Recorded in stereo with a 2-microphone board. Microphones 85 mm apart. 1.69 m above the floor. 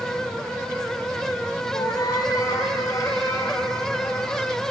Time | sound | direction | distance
1.7 | a cat meowing | 50° left (ahead or behind) | 4.5 m